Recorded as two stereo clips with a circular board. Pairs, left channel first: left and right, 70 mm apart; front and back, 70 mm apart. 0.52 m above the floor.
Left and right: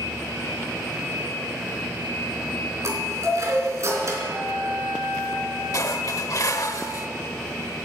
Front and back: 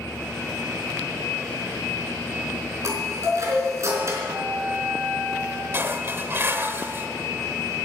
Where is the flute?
140° right, 3 m.